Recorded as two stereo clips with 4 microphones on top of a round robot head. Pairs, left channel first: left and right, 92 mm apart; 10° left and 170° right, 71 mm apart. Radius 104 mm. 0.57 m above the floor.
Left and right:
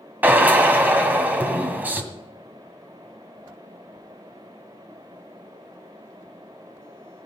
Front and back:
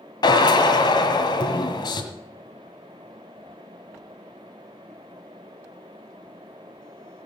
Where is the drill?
20° right, 1.9 m.